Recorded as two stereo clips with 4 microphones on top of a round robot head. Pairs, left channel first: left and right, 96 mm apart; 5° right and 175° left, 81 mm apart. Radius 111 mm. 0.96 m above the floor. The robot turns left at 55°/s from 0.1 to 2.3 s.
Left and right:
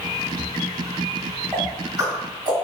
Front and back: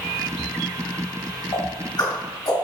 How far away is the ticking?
About 1.9 m.